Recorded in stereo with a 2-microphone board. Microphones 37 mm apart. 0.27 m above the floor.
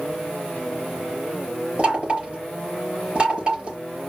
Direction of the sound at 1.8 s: 30° right (ahead or behind).